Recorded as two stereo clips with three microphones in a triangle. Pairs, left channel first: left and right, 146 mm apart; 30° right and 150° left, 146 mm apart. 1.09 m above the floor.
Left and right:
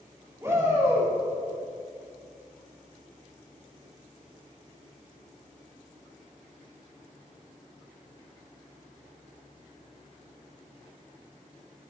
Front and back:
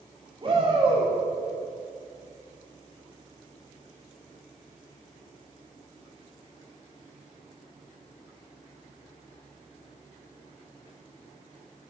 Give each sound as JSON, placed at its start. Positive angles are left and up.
{"t": 0.4, "sound": "a shout", "azimuth_deg": -160, "distance_m": 3.0}